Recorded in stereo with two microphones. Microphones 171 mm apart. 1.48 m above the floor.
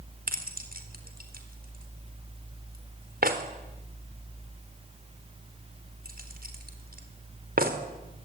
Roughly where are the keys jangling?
Right.